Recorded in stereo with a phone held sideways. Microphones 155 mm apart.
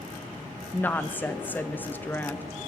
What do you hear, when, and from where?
0.7 s a woman speaking: 10° left (ahead or behind), 0.6 m